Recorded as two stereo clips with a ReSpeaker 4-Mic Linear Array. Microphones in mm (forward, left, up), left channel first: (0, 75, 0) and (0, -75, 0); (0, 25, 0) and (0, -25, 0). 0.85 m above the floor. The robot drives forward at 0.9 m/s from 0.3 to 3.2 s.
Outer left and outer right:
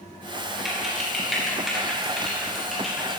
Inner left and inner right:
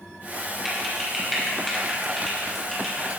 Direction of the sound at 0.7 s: Centre (ahead or behind).